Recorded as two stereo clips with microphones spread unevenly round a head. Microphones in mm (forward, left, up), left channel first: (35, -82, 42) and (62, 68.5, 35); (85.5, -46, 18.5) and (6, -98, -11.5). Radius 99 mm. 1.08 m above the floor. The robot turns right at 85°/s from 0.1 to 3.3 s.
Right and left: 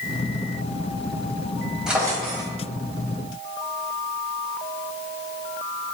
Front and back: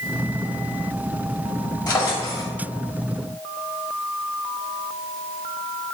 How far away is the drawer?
About 2.5 m.